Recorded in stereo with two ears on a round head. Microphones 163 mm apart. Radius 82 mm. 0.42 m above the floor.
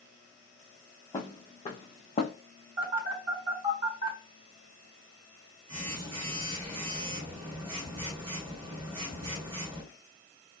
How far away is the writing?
No writing in this recording.